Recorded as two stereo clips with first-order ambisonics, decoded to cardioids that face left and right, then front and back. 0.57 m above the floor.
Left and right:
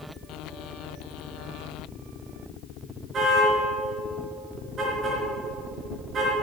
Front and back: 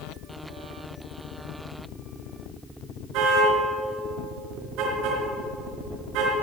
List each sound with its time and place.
3.1 s a car horn: 155° right, 4.5 m